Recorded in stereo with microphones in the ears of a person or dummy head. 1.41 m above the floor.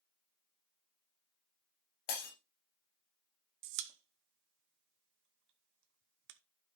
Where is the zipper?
No zipper in this recording.